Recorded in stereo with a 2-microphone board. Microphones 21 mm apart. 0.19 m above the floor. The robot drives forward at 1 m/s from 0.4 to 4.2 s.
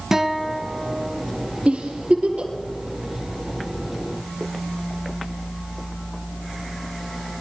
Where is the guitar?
15° right (ahead or behind), 1.3 m; by 1.2 s 10° right (ahead or behind), 1.8 m.